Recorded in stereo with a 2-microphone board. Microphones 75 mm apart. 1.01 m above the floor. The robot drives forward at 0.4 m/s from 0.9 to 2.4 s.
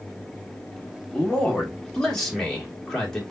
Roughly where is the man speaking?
Centre.